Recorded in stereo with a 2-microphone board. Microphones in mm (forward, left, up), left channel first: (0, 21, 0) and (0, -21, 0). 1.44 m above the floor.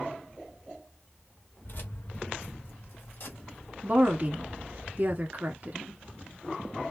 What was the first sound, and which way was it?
Keys jangling, 50° left (ahead or behind).